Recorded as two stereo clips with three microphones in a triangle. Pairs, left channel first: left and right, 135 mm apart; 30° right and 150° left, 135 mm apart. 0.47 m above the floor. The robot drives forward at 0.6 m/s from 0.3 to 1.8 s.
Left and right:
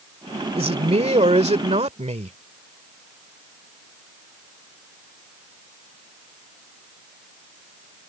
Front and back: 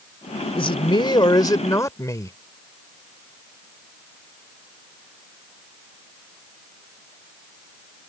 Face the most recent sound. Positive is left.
turn(degrees=-90)